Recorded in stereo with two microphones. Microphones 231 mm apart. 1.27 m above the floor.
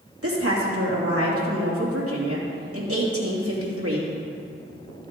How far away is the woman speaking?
About 2.5 m.